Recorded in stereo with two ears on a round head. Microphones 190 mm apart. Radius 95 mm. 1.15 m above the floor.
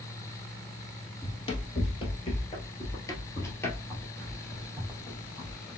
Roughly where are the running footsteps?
Left.